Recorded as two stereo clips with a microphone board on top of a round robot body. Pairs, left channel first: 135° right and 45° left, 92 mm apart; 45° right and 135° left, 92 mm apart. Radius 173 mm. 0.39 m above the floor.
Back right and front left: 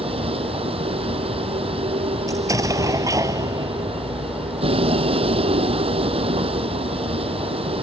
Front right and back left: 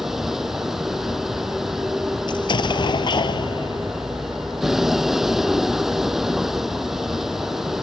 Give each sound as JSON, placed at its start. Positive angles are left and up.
{"t": 0.0, "sound": "a vehicle", "azimuth_deg": 45}
{"t": 2.3, "sound": "an explosion", "azimuth_deg": -10}